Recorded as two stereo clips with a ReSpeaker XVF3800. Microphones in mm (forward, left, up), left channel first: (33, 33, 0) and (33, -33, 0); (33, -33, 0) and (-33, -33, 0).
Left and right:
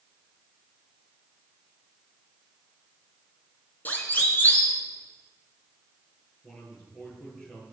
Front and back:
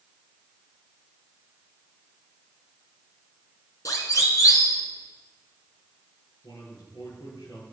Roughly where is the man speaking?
Ahead.